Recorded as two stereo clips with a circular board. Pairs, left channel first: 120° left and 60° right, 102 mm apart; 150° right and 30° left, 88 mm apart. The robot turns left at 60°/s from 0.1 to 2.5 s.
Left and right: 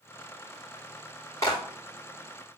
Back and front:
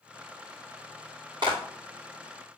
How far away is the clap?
About 6 m.